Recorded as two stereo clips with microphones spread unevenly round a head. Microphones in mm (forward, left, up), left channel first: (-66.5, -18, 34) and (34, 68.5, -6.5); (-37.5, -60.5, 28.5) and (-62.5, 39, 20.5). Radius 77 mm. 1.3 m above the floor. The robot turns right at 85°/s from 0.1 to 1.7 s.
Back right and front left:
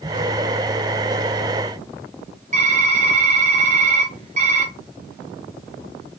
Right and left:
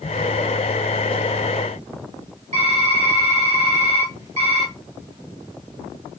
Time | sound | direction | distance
2.5 | typing on a keyboard | 65° left | 1.2 m